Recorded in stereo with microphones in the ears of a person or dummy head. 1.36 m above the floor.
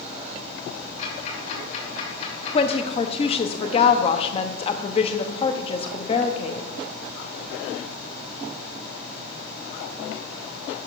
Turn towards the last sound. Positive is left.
turn(degrees=30)  # may be behind; listen again after turning